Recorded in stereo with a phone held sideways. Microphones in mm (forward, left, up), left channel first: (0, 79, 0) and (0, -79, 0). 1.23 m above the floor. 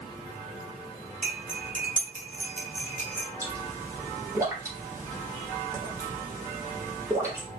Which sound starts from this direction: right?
Cutlery clinking, at 1.2 s.